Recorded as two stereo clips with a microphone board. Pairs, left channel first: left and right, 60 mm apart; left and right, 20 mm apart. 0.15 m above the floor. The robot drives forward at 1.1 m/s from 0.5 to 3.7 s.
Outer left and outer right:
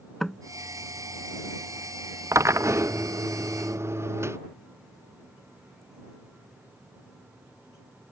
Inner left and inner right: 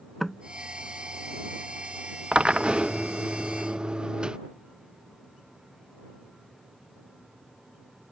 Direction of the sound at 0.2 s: 5° left (ahead or behind).